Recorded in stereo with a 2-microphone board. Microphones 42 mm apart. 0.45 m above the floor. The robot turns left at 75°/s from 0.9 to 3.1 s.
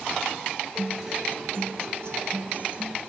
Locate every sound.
0.8 s a guitar: straight ahead, 0.8 m; by 3.0 s 155° right, 0.8 m